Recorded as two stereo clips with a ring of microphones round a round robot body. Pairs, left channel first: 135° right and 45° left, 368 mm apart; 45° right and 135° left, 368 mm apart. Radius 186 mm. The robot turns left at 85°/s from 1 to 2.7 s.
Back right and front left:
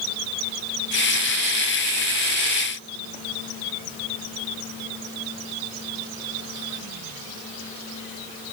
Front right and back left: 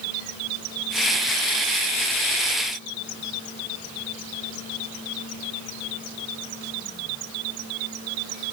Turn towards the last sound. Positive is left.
No sound to turn to.